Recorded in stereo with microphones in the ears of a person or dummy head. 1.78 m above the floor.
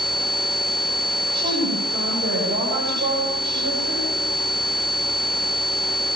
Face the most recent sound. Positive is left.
turn(degrees=-55)  # may be behind; listen again after turning